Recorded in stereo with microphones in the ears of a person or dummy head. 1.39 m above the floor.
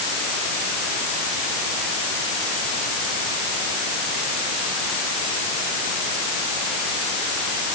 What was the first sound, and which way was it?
Only background noise.